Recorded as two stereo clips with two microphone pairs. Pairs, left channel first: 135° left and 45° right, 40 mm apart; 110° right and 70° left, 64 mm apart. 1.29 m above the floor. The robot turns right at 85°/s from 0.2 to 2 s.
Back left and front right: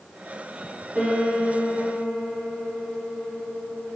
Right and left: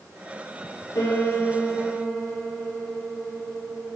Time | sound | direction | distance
0.9 | a piano | 95° right | 5 m